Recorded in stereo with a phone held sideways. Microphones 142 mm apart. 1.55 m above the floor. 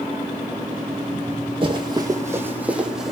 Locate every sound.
1.6 s running footsteps: 35° right (ahead or behind), 2 m; by 3.1 s centre (ahead or behind), 3.5 m